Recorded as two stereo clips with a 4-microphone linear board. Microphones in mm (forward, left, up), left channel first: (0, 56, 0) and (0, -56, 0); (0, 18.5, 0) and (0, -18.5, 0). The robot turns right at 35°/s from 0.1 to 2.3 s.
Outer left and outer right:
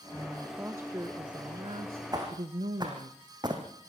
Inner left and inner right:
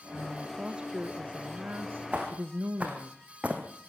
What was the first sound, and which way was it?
A woman speaking, straight behind.